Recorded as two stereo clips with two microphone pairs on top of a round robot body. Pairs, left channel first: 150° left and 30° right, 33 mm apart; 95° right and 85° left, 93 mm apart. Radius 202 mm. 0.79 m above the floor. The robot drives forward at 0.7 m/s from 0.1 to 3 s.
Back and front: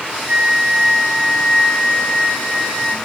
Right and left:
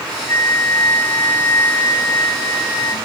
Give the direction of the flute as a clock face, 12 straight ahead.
2 o'clock.